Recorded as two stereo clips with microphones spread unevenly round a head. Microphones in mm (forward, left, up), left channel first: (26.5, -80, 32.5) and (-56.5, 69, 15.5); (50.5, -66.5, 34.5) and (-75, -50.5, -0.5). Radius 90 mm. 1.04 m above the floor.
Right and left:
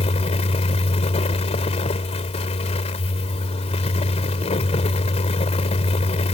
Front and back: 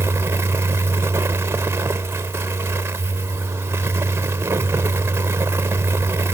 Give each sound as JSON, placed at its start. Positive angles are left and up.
{"t": 0.0, "sound": "a fan", "azimuth_deg": -115}